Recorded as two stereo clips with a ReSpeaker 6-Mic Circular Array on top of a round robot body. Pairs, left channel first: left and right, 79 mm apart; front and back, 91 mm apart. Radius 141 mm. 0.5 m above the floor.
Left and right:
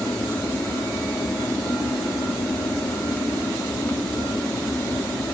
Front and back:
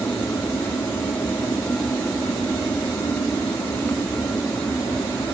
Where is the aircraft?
45° left.